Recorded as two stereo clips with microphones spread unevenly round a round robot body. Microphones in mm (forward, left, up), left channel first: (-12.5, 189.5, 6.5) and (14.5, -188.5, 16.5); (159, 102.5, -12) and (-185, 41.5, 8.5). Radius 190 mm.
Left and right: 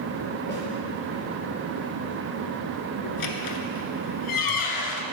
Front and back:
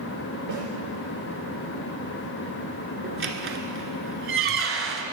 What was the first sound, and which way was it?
A snare drum, 160° left.